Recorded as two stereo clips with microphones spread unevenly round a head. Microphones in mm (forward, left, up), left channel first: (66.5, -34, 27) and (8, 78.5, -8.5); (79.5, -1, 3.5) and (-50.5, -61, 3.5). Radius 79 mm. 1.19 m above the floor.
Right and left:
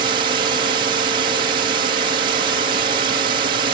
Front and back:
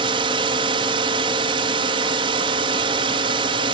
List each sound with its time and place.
0.0 s a drone: 150° left